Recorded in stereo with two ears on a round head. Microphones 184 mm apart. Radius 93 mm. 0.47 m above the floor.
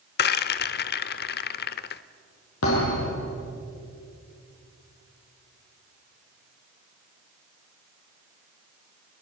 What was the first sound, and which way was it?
A rattle, 50° left (ahead or behind).